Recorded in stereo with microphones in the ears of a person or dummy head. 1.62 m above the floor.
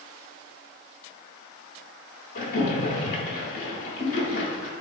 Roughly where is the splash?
Left.